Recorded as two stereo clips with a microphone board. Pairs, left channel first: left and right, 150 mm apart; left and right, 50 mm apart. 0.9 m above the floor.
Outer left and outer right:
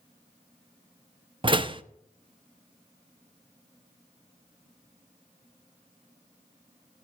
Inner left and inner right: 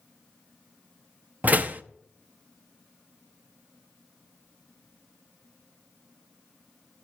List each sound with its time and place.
1.4 s a door slam: 35° right (ahead or behind), 0.7 m